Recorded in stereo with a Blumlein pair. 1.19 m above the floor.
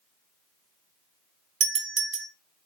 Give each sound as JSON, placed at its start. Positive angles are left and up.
{"t": 1.6, "sound": "a doorbell", "azimuth_deg": -35, "distance_m": 1.6}